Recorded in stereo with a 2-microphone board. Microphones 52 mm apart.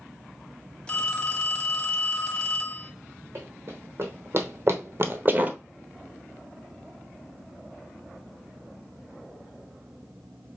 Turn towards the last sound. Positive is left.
turn(degrees=-25)  # may be behind; listen again after turning